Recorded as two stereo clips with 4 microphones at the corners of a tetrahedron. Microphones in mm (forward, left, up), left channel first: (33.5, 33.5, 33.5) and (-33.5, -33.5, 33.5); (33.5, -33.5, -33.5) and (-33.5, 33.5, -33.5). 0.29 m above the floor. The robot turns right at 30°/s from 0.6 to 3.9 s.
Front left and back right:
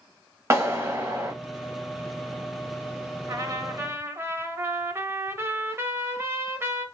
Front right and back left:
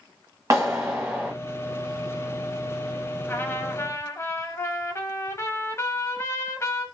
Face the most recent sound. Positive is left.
turn(degrees=-85)